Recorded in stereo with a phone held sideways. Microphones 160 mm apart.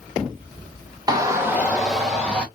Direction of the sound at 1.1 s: 25° right (ahead or behind).